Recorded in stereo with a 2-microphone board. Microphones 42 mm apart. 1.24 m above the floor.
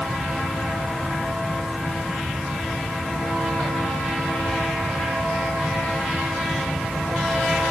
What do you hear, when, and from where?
Only background noise.